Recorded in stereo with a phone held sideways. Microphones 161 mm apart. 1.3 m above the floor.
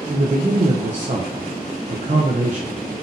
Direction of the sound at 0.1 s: 45° right (ahead or behind).